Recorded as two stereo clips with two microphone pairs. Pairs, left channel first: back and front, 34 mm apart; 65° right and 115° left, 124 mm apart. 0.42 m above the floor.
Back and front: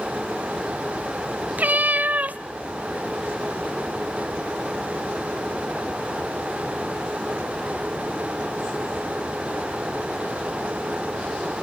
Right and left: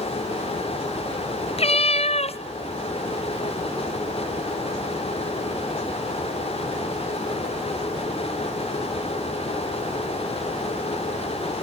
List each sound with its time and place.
1.6 s a cat meowing: 35° right, 0.5 m